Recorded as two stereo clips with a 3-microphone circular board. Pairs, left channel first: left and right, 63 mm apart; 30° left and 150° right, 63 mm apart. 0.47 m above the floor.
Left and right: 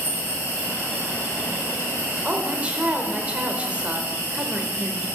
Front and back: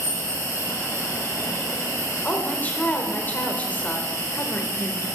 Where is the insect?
45° left, 5 m.